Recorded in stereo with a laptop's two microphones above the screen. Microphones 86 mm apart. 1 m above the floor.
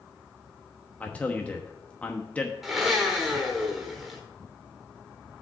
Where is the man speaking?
15° left (ahead or behind), 1.0 m.